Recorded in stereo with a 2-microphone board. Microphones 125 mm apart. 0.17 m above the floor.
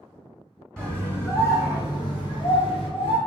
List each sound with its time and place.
0.8 s a scream: 10° left (ahead or behind), 1.6 m; by 3.2 s 50° left (ahead or behind), 3.5 m